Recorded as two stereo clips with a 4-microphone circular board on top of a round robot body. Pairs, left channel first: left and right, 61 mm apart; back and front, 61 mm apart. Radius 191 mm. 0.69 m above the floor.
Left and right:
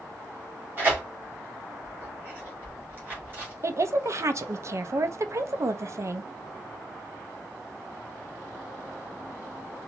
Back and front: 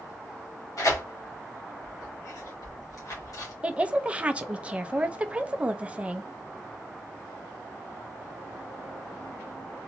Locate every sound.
0.8 s tearing paper: 150° right, 1.8 m
3.6 s a woman speaking: 65° right, 0.7 m